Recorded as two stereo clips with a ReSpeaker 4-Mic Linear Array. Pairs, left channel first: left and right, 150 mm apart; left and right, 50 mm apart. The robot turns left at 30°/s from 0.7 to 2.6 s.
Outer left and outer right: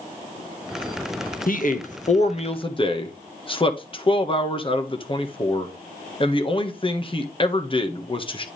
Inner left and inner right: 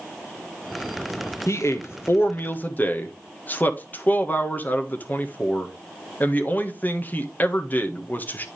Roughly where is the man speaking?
Left.